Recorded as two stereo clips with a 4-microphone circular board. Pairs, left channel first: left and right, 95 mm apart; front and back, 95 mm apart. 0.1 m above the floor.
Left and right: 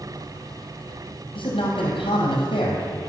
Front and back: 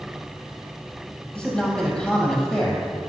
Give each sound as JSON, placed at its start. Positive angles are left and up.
{"t": 1.4, "sound": "a man speaking", "azimuth_deg": 85, "distance_m": 2.5}